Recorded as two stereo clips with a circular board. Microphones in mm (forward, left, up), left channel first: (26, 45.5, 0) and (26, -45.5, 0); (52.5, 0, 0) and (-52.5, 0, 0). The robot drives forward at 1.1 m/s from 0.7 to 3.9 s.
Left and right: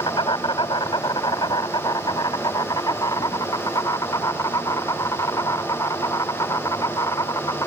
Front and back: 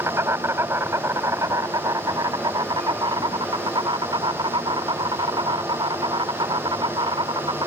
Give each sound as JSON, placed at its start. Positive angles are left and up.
{"t": 0.0, "sound": "an insect", "azimuth_deg": 115}